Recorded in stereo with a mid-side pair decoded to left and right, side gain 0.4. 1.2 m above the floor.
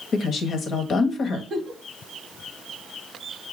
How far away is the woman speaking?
About 1.1 m.